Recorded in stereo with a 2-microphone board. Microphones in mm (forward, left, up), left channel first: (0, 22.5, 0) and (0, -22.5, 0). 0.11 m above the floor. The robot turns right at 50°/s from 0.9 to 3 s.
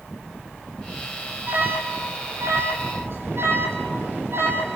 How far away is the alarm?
About 4 m.